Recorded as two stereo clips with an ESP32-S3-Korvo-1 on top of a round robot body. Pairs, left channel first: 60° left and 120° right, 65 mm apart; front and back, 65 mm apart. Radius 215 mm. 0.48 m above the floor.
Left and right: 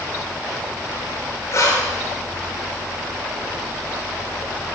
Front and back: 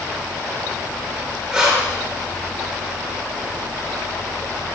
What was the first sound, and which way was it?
Breathing, 105° left.